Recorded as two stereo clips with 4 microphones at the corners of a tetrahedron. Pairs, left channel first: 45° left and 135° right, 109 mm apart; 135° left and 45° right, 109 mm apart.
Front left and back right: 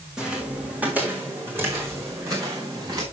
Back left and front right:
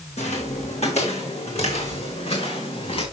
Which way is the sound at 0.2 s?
140° left.